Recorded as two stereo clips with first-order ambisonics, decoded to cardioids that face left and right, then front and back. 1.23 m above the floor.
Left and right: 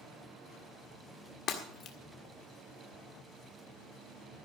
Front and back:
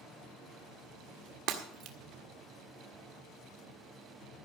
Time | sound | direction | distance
1.5 | breaking glass | 140° left | 1.6 m